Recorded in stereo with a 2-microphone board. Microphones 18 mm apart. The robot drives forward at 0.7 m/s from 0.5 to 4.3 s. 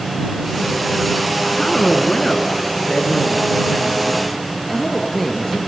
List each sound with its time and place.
1.5 s a woman speaking: 30° left (ahead or behind), 1.6 m; by 5.6 s 20° left (ahead or behind), 2.5 m